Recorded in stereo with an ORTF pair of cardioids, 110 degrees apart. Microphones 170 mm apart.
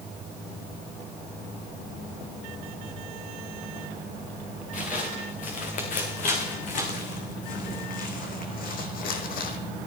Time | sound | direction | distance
4.7 | footsteps | 50° left | 4.5 m